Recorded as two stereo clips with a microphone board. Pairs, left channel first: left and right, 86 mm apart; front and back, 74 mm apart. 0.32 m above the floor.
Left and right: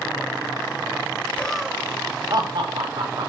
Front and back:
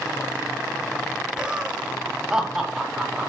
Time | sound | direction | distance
1.4 | laughter | 120° left | 0.9 m